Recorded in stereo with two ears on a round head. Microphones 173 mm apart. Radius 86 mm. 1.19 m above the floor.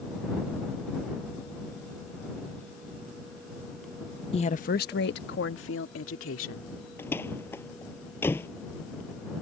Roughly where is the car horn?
No car horn in this recording.